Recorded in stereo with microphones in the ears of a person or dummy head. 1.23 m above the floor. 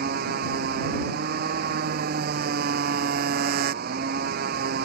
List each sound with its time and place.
0.0 s a motorcycle: 60° right (ahead or behind)